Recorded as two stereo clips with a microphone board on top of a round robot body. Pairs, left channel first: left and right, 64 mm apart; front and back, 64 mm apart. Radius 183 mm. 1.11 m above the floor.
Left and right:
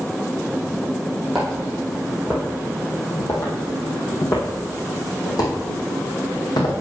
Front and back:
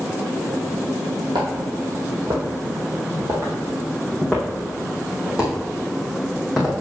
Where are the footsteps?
Straight behind, 1.8 m; by 6.8 s 95° left, 3 m.